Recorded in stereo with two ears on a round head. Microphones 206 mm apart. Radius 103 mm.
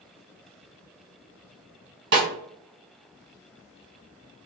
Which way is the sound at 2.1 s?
50° right (ahead or behind).